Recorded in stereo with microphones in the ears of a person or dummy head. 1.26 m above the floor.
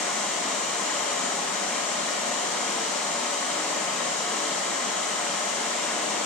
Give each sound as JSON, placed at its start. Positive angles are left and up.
{"t": 0.0, "sound": "running water", "side_deg": 5, "distance_m": 4.0}